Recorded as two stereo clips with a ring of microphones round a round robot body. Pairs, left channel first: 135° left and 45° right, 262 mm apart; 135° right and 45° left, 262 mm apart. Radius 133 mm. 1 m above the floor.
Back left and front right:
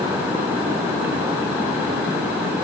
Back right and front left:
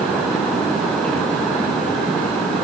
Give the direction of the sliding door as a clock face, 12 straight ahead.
I don't hear a sliding door.